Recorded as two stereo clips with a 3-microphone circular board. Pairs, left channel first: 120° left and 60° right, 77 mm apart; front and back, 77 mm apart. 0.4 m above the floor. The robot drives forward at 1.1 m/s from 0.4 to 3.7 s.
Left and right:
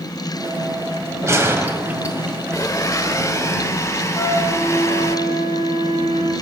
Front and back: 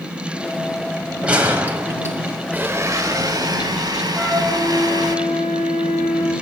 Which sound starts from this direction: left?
A flute, at 4.2 s.